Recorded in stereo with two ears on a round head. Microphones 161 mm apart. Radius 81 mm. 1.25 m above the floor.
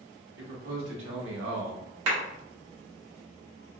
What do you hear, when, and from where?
0.4 s a man speaking: 70° right (ahead or behind), 1.5 m; by 1.9 s 80° right, 0.8 m
2.1 s a clap: 85° right, 1.4 m